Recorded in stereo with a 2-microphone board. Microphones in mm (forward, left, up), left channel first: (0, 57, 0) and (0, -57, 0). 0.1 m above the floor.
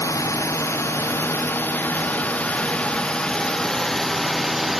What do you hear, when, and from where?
0.0 s a drone: 30° left (ahead or behind); by 4.8 s centre (ahead or behind)